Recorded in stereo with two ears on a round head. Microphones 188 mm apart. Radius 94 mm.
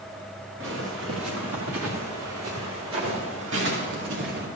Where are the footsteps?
60° right (ahead or behind), 3 m; by 4.5 s 55° right (ahead or behind), 4 m.